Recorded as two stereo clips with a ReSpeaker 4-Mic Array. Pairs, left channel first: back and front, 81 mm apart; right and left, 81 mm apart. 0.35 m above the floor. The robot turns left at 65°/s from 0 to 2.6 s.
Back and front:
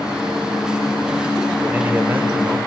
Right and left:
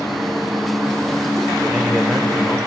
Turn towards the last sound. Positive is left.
turn(degrees=-30)